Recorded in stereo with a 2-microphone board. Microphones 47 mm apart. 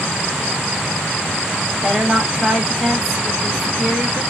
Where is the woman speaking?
5° left (ahead or behind), 1.0 m.